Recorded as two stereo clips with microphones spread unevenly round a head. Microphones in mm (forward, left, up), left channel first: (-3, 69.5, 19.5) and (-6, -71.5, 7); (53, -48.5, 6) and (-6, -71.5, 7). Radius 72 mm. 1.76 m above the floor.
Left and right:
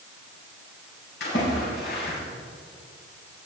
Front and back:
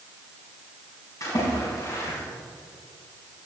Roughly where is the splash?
Left.